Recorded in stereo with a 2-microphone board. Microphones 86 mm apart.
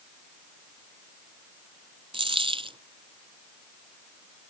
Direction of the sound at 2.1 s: 85° right.